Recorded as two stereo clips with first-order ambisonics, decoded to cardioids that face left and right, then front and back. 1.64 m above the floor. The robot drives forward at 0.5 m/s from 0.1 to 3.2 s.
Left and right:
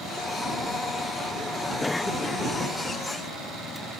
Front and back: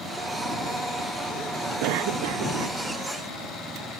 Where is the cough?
175° left.